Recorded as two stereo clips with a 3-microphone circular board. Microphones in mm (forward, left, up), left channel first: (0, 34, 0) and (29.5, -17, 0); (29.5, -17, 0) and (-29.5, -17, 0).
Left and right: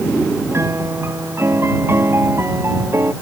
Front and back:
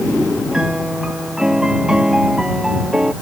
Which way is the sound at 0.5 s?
100° right.